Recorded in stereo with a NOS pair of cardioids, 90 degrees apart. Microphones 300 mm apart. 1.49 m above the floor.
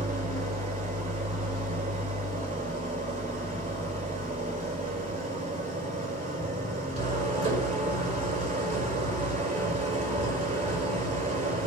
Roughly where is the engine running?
Ahead.